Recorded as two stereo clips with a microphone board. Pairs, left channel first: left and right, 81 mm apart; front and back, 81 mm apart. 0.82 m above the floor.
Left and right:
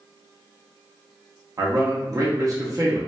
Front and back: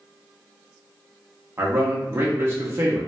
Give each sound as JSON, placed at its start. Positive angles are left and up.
{"t": 1.6, "sound": "a man speaking", "azimuth_deg": -125, "distance_m": 0.8}